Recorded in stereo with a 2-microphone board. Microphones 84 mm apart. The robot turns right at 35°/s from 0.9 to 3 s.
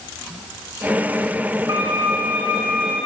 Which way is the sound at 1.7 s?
40° right.